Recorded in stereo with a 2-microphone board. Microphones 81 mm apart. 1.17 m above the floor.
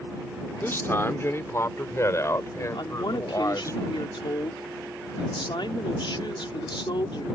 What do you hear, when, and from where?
0.6 s a man speaking: 30° left (ahead or behind); by 3.8 s 40° left (ahead or behind)
2.8 s a woman speaking: 85° left